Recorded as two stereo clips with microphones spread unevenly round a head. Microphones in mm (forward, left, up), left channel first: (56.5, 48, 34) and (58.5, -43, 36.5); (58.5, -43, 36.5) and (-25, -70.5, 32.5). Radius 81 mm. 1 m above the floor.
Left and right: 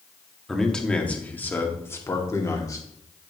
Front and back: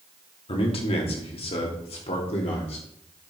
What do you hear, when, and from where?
0.5 s a man speaking: 5° left, 2 m; by 2.9 s 40° left, 2.5 m